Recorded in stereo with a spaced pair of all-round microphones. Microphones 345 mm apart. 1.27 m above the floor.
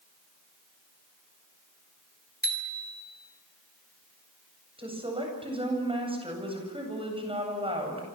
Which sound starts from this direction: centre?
A woman speaking, at 4.8 s.